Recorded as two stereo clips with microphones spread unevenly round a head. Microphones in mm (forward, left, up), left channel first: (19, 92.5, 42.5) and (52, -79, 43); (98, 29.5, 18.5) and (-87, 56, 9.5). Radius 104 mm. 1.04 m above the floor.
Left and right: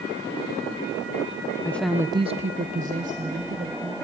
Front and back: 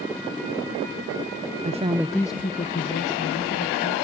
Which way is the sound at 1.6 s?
175° left.